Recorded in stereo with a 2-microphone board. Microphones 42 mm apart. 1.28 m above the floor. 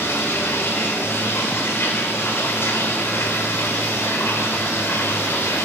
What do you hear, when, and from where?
0.0 s running water: 80° left, 2.5 m